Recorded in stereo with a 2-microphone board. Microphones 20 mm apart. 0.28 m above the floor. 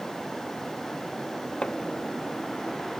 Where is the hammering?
60° left (ahead or behind).